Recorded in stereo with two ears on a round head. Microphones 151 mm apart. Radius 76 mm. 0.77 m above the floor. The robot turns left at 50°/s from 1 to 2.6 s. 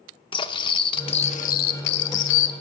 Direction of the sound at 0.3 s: 150° left.